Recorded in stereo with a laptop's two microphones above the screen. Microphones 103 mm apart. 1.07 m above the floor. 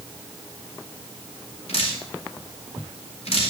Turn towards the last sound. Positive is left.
turn(degrees=80)